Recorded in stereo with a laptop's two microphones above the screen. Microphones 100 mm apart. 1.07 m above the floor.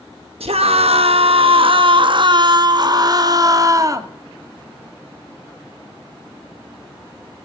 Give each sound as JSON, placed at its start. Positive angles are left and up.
{"t": 0.4, "sound": "a scream", "side_deg": -80, "distance_m": 1.0}